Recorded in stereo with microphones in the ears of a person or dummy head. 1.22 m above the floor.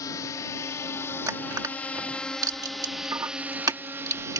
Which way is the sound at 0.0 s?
25° left (ahead or behind).